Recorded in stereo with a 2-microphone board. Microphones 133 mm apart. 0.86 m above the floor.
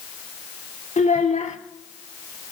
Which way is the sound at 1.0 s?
70° left (ahead or behind).